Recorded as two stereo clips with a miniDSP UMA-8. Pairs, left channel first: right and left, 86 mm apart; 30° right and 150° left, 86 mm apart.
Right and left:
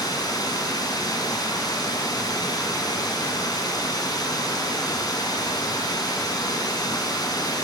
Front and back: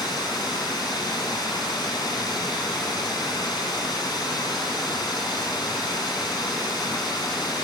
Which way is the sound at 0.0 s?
55° right.